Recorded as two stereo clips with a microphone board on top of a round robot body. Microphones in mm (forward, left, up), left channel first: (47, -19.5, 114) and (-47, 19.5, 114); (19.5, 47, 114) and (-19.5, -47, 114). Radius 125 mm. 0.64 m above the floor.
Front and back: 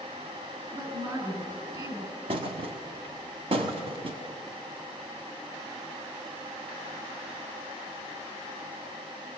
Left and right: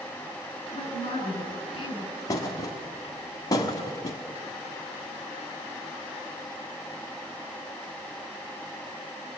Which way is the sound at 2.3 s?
125° left.